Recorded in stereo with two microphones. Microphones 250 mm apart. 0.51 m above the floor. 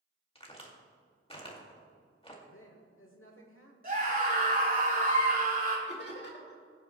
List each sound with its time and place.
0.3 s a crack: 20° left (ahead or behind), 2 m
2.5 s a woman speaking: 55° left (ahead or behind), 1.2 m
3.8 s a scream: 35° right (ahead or behind), 5 m
5.9 s laughter: 45° left (ahead or behind), 2.5 m